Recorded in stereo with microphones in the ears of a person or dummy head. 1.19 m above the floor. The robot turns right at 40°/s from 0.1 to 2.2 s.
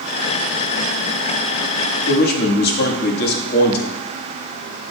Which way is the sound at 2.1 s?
60° left (ahead or behind).